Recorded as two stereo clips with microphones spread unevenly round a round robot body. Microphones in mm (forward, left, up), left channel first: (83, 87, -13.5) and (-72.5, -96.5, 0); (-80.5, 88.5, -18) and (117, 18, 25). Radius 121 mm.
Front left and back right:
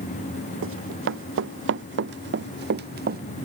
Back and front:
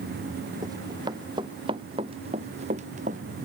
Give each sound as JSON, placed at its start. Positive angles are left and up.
{"t": 0.6, "sound": "running footsteps", "azimuth_deg": -95}